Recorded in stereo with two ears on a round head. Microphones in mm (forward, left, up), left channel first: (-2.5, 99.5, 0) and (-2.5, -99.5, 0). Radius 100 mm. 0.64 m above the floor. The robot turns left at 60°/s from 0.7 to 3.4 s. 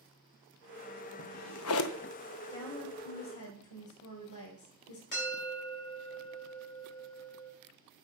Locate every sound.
1.2 s a drawer: 65° left (ahead or behind), 0.5 m; by 2.1 s 50° left (ahead or behind), 0.5 m
2.5 s a woman speaking: 155° left, 3 m; by 5.0 s 105° left, 3 m
5.1 s a bell: 50° left (ahead or behind), 4 m